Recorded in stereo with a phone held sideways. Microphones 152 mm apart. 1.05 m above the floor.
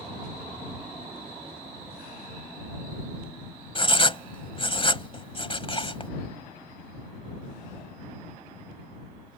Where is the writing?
35° left (ahead or behind).